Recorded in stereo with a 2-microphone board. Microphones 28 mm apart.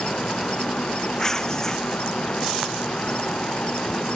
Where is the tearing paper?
15° left (ahead or behind).